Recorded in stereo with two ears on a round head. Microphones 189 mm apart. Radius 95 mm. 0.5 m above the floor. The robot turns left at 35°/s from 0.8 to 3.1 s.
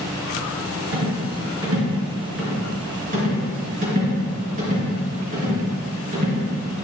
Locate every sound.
0.9 s a rattle: 65° right (ahead or behind), 2.5 m; by 6.5 s 35° right (ahead or behind), 2.5 m